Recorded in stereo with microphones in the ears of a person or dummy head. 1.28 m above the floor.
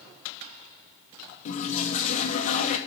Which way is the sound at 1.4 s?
40° left (ahead or behind).